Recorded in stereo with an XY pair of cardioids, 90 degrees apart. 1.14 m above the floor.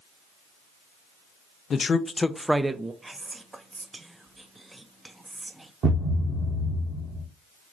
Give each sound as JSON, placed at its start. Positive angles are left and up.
{"t": 1.7, "sound": "a man speaking", "azimuth_deg": 55, "distance_m": 0.7}
{"t": 3.0, "sound": "whispering", "azimuth_deg": -20, "distance_m": 0.6}
{"t": 5.8, "sound": "a thud", "azimuth_deg": -70, "distance_m": 1.5}